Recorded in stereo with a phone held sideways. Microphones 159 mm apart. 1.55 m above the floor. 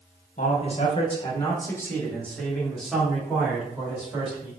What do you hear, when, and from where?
0.4 s a man speaking: 50° left (ahead or behind), 1.1 m; by 4.5 s 15° right (ahead or behind), 2.5 m